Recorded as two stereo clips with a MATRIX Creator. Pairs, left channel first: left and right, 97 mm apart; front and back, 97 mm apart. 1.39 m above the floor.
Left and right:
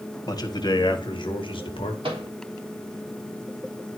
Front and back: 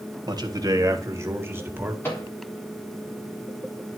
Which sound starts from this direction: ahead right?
A microwave, at 2.0 s.